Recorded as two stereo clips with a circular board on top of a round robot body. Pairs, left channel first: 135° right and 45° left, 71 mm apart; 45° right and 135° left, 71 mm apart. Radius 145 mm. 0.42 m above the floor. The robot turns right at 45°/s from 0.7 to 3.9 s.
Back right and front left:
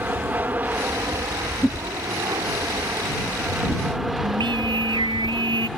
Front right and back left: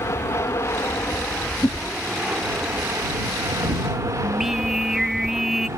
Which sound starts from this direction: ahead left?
Singing, at 4.2 s.